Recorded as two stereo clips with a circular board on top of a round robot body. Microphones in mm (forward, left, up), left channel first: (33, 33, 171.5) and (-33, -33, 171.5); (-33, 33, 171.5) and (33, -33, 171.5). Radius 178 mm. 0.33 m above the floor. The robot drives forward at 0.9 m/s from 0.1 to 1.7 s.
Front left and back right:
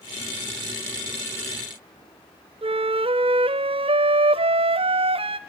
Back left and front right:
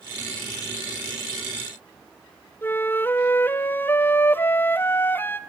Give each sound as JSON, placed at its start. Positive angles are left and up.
{"t": 2.6, "sound": "a flute", "azimuth_deg": -155, "distance_m": 0.7}